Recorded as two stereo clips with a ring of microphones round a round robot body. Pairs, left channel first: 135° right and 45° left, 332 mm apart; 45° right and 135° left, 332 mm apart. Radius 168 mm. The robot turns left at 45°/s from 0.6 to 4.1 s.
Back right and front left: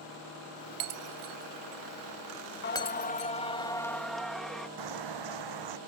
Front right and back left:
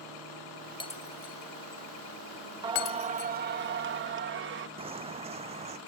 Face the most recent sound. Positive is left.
turn(degrees=65)